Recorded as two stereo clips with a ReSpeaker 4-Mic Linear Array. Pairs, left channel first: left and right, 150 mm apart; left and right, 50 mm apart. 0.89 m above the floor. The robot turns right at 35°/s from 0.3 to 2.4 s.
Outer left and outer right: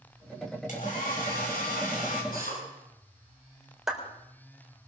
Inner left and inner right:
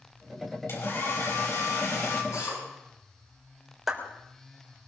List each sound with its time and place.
0.7 s a hair dryer: 60° left, 4.5 m; by 2.2 s 115° left, 4.5 m
2.3 s a drill: 75° left (ahead or behind), 9.5 m; by 2.6 s 80° left, 9.5 m
3.9 s a clap: centre (ahead or behind), 3.5 m